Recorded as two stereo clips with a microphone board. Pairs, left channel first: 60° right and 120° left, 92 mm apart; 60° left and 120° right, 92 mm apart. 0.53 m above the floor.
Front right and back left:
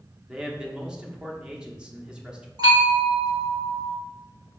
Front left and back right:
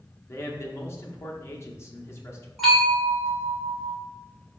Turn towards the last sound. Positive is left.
turn(degrees=145)